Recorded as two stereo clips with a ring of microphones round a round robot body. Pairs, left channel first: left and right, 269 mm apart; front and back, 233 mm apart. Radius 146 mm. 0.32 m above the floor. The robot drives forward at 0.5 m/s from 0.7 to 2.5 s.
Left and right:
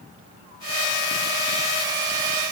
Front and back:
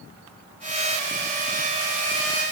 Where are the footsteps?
I don't hear footsteps.